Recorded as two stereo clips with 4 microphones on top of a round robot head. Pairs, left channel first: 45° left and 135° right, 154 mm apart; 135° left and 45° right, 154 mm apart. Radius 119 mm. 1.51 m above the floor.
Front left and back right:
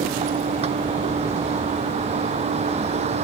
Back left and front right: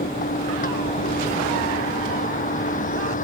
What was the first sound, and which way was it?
A vehicle, 175° left.